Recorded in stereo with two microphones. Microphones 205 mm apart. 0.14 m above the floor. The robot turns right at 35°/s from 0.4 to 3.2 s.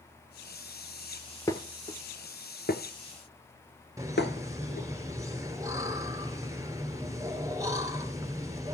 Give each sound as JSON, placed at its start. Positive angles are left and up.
{"t": 1.5, "sound": "dishes clattering", "side_deg": 15, "distance_m": 1.4}
{"t": 4.0, "sound": "laughter", "side_deg": -15, "distance_m": 2.5}